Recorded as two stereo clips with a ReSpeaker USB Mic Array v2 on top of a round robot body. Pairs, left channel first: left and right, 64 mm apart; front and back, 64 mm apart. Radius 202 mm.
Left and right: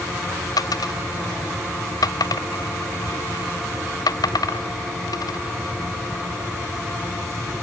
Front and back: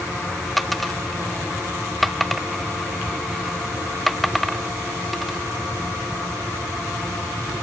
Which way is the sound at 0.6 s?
90° left.